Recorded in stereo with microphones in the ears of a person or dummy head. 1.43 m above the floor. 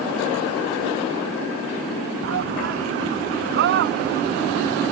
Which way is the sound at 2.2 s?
55° right (ahead or behind).